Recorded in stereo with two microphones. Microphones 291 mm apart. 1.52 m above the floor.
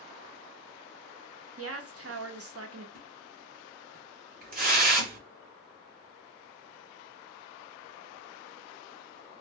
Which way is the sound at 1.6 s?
50° right (ahead or behind).